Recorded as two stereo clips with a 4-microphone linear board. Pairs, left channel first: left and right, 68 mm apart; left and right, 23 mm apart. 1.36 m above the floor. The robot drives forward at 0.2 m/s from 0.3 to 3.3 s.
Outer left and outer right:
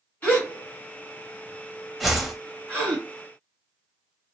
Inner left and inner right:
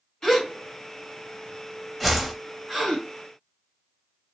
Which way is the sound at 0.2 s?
25° left (ahead or behind).